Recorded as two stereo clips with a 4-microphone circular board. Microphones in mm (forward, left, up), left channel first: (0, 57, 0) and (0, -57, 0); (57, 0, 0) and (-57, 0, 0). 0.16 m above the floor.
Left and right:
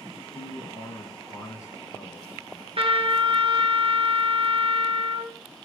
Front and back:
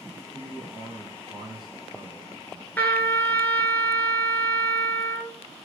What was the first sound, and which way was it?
A man speaking, 145° left.